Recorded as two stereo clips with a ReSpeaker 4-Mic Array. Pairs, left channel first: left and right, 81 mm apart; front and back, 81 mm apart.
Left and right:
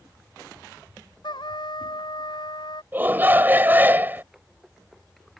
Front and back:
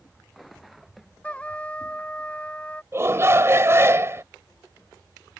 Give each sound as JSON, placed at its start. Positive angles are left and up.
{"t": 1.2, "sound": "a trumpet", "azimuth_deg": 75}
{"t": 2.9, "sound": "a shout", "azimuth_deg": -145}